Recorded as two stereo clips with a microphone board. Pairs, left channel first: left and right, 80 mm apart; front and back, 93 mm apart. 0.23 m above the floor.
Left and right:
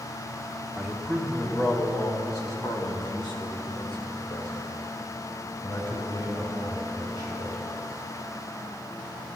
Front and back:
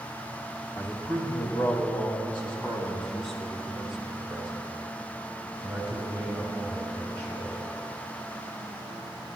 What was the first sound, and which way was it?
A man speaking, 10° left.